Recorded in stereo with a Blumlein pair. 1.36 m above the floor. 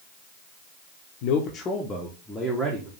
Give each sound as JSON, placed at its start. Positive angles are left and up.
{"t": 1.2, "sound": "a man speaking", "azimuth_deg": 45, "distance_m": 0.8}